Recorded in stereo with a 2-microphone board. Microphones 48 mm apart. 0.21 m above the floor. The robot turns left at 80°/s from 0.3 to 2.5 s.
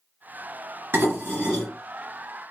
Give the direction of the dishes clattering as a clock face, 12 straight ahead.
4 o'clock.